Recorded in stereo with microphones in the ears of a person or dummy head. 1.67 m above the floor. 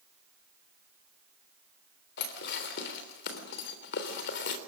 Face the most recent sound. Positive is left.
turn(degrees=60)  # may be behind; listen again after turning